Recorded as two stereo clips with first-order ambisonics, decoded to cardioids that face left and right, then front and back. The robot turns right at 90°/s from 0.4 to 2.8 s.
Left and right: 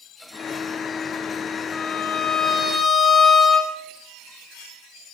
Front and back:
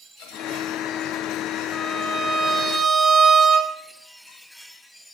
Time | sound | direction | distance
1.7 | a violin | 60° left | 1.1 m